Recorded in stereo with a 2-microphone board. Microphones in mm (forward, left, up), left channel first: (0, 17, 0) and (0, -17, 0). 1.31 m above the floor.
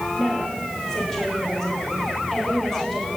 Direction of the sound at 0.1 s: 15° left (ahead or behind).